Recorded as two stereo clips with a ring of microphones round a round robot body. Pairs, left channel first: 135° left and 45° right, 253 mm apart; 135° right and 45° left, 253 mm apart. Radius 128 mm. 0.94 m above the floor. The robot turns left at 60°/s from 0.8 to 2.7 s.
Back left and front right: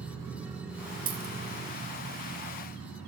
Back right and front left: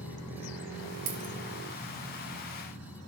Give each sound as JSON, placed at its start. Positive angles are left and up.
{"t": 1.1, "sound": "a dropped coin", "azimuth_deg": 15, "distance_m": 1.1}